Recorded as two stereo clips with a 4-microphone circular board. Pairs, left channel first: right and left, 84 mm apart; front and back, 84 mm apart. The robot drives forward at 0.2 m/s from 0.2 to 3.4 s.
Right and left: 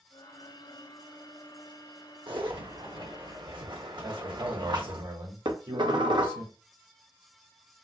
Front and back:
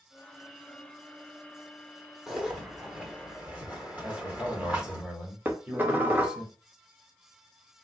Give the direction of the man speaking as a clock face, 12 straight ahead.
9 o'clock.